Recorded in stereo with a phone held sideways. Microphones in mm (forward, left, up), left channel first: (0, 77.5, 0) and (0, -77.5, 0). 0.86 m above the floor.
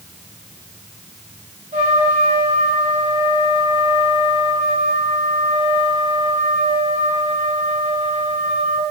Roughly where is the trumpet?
Right.